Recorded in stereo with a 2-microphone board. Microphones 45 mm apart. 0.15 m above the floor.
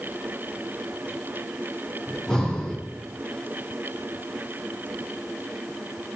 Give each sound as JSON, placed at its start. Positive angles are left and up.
{"t": 2.1, "sound": "breathing", "side_deg": 10, "distance_m": 6.5}